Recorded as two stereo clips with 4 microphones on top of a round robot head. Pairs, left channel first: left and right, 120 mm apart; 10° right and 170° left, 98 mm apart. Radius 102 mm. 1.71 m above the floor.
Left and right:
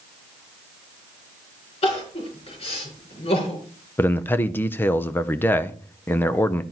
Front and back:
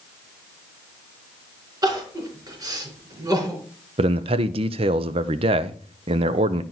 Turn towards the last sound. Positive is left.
turn(degrees=160)